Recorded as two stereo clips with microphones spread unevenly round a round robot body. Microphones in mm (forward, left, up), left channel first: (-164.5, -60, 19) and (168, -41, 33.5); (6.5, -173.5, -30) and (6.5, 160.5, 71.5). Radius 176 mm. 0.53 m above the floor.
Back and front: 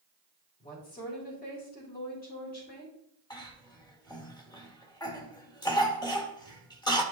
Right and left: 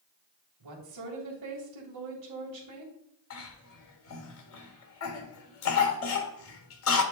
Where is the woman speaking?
120° left, 3 m.